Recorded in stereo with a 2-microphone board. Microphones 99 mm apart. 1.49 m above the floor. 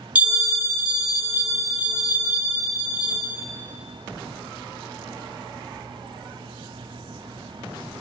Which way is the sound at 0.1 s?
15° right (ahead or behind).